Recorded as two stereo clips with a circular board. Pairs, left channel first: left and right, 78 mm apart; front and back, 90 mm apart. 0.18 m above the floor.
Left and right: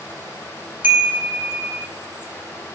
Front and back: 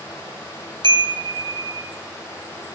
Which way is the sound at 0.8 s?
155° right.